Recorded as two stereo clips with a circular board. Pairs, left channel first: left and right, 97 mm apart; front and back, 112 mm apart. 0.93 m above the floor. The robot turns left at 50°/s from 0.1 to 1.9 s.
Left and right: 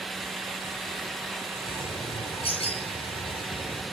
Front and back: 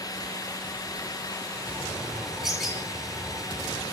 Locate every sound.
1.7 s a bird: 105° left, 7 m; by 3.8 s 90° left, 7 m